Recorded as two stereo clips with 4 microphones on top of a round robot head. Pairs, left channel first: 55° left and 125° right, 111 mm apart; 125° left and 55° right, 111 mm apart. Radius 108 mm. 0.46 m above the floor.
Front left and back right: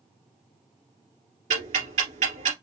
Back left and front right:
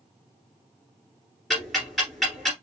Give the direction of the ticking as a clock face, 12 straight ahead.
5 o'clock.